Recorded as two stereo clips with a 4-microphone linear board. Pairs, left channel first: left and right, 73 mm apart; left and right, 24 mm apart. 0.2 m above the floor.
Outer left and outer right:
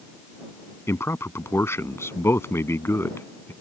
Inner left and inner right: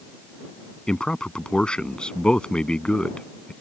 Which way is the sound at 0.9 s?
40° left (ahead or behind).